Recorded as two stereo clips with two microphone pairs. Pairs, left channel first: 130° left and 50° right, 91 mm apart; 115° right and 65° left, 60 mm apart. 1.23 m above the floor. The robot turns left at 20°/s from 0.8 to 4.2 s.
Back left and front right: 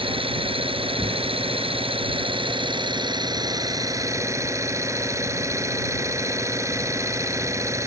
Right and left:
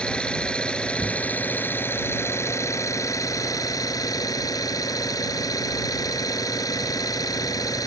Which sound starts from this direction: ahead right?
An engine running, at 0.0 s.